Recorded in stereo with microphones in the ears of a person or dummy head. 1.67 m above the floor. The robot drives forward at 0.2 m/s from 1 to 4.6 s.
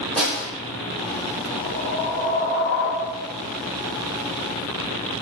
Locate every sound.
0.2 s a snare drum: 5° left (ahead or behind), 1.4 m
1.6 s a whoosh: 60° left (ahead or behind), 1.1 m; by 3.3 s 65° left (ahead or behind), 1.0 m